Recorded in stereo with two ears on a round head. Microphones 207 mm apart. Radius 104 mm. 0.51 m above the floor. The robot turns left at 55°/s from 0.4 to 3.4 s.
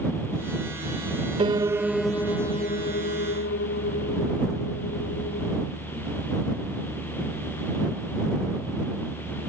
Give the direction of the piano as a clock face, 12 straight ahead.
5 o'clock.